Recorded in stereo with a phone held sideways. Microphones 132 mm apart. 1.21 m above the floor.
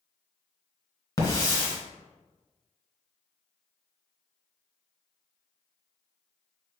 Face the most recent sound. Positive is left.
turn(degrees=25)  # may be behind; listen again after turning